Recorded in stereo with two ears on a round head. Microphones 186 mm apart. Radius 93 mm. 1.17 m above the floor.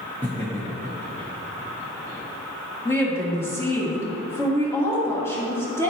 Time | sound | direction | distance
0.2 | laughter | 10° left (ahead or behind) | 0.9 m
2.9 | a woman speaking | 10° left (ahead or behind) | 2 m